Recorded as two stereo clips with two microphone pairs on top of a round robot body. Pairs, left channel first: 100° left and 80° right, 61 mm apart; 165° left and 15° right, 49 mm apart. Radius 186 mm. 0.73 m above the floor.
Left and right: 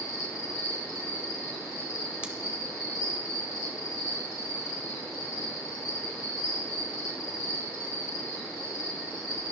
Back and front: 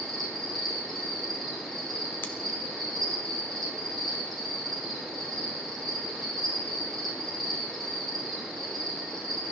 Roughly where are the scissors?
Behind right.